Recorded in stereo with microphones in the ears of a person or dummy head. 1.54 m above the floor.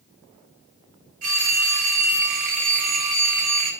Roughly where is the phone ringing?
Right.